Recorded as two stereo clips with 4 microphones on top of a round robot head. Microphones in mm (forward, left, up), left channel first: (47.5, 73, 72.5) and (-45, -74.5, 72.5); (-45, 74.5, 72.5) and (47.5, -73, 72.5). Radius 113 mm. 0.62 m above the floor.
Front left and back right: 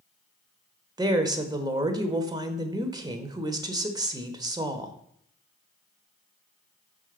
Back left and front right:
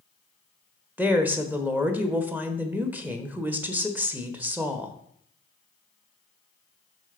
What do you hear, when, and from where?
1.0 s a woman speaking: 120° right, 1.1 m